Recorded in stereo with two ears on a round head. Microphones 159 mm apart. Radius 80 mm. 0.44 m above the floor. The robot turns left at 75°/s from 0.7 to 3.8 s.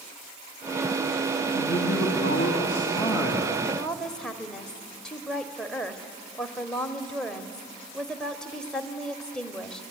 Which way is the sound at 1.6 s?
135° left.